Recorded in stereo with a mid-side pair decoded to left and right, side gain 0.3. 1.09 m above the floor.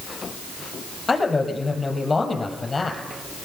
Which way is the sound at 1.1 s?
40° left.